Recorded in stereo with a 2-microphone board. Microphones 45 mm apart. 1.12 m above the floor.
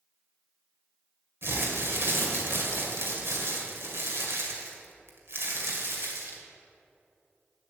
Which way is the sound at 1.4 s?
60° right (ahead or behind).